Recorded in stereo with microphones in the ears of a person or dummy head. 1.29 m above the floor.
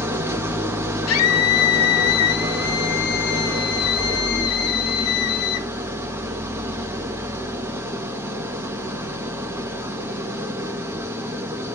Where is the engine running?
10° right (ahead or behind), 0.7 m.